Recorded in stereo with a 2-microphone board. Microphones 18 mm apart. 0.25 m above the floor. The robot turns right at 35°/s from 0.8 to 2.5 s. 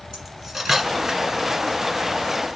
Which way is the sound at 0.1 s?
20° right (ahead or behind).